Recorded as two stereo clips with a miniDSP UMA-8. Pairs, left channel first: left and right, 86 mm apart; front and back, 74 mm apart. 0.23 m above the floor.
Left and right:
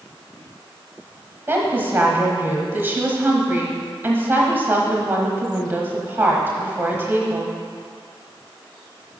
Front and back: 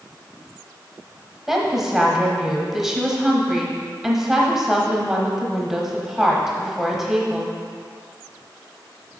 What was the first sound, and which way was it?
A woman speaking, 105° right.